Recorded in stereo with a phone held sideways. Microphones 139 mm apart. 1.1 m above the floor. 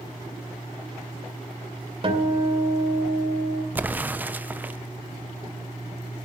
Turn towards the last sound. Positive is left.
turn(degrees=-10)  # may be behind; listen again after turning